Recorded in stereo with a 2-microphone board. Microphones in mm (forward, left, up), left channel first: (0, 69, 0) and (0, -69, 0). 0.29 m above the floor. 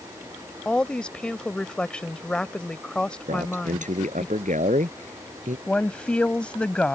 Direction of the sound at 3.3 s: 65° right (ahead or behind).